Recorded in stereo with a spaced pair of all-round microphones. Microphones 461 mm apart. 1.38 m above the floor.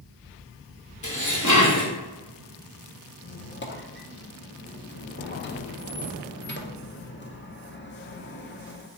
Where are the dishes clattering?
40° left (ahead or behind), 1.2 m.